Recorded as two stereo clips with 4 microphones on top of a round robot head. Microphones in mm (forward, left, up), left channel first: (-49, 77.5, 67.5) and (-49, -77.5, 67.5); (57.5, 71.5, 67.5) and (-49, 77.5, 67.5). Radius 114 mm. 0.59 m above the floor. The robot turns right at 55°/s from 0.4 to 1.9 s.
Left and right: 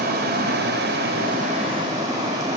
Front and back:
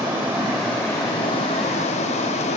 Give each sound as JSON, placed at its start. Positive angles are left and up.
{"t": 0.0, "sound": "running water", "azimuth_deg": -105, "distance_m": 1.5}